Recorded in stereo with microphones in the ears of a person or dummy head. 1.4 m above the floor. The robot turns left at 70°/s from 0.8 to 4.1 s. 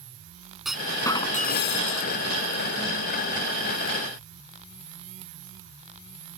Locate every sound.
0.7 s a clunk: straight behind; by 2.1 s 85° left